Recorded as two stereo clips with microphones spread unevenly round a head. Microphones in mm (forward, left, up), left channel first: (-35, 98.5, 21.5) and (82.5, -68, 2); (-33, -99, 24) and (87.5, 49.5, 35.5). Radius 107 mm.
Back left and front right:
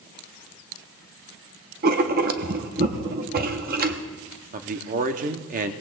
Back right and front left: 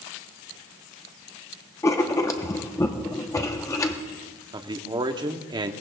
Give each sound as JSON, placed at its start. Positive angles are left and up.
{"t": 1.8, "sound": "writing", "azimuth_deg": -60, "distance_m": 0.9}
{"t": 4.5, "sound": "a man speaking", "azimuth_deg": -10, "distance_m": 0.9}